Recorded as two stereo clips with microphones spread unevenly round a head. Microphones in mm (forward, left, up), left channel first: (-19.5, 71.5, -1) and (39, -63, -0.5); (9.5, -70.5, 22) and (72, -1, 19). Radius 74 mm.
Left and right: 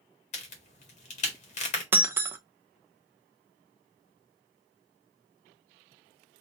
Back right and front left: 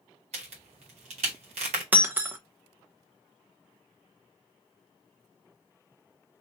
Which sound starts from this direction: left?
A crack, at 0.3 s.